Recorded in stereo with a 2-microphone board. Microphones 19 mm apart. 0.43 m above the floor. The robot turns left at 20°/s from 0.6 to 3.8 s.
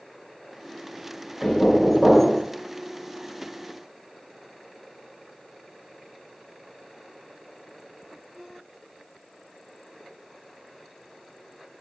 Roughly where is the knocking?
Centre.